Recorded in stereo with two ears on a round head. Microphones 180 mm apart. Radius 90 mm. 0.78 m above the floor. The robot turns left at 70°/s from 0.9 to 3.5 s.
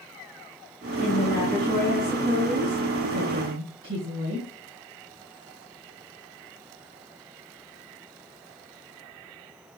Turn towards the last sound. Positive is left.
turn(degrees=-130)